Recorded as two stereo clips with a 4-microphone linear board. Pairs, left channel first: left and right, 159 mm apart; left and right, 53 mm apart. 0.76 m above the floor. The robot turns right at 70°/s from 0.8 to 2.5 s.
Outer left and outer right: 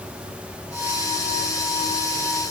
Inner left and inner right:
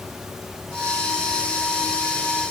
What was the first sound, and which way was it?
Only background noise.